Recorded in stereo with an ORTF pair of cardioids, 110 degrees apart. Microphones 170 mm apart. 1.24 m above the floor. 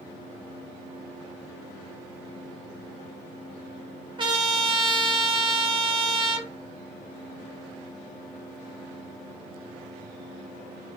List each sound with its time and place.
4.2 s a trumpet: 30° right, 1.0 m